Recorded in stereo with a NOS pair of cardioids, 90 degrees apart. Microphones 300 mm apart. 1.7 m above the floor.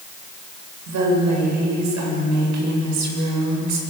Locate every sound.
0.9 s a woman speaking: 70° right, 8.5 m